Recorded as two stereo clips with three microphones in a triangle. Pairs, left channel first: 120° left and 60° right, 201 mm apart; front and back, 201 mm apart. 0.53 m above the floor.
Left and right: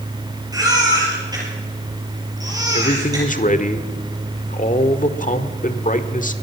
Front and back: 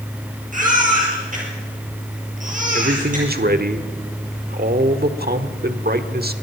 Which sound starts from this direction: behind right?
A baby crying, at 0.5 s.